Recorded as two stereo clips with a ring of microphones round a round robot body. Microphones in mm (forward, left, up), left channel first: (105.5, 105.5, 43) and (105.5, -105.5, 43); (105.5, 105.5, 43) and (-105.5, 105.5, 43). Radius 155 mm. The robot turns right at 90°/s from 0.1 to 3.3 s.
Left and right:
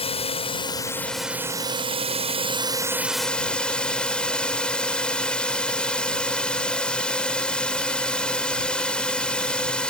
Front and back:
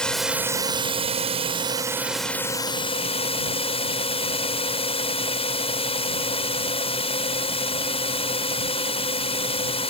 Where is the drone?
80° left; by 9.9 s 10° left.